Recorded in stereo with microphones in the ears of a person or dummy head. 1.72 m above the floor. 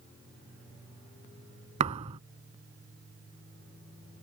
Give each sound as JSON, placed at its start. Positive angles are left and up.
{"t": 1.8, "sound": "a thud", "side_deg": -35}